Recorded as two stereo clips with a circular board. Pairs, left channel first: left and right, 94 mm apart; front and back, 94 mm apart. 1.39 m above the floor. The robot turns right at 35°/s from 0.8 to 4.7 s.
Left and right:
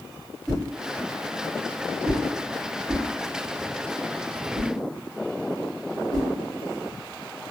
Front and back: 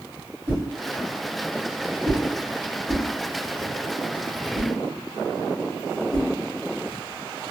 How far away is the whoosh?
About 1.2 m.